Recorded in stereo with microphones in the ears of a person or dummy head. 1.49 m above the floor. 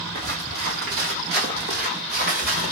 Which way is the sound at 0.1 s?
50° right (ahead or behind).